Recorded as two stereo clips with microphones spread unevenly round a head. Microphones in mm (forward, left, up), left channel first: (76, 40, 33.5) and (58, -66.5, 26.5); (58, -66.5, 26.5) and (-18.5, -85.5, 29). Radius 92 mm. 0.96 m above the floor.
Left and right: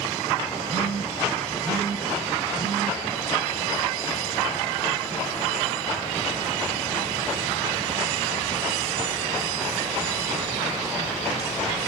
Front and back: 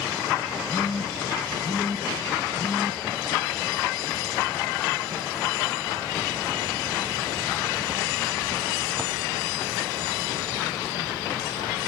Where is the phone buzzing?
170° left, 2.0 m.